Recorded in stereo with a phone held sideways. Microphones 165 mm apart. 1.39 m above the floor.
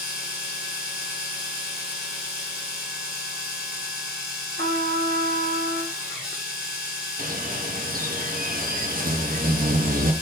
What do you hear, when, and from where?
0.0 s a machine running: 5° right (ahead or behind), 1.7 m
4.6 s a trumpet: 80° right, 1.5 m
7.2 s a bird: 60° right (ahead or behind), 0.7 m